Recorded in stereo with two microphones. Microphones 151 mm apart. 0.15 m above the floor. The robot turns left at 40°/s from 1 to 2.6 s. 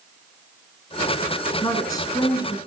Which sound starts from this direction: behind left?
A woman speaking, at 1.6 s.